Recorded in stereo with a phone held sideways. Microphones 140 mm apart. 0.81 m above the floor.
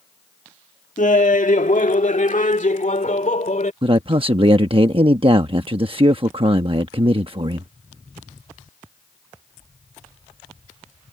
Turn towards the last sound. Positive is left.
turn(degrees=-40)  # may be behind; listen again after turning